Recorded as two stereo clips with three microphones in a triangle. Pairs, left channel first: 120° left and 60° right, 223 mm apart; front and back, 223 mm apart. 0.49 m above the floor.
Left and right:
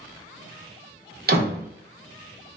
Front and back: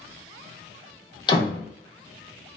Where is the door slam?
60° right, 0.6 m.